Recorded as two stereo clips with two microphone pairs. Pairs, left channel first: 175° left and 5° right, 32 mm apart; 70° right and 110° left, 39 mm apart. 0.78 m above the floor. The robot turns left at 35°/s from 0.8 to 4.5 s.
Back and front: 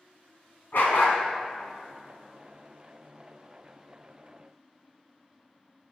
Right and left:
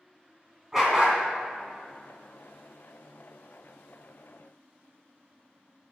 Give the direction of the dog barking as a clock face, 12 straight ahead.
6 o'clock.